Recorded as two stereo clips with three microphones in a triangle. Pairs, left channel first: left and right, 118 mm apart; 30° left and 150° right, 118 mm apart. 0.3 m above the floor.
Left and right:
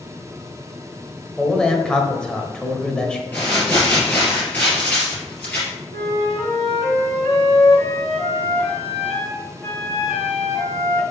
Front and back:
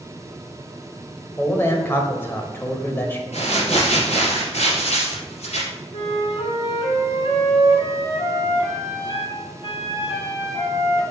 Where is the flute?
25° left, 2 m.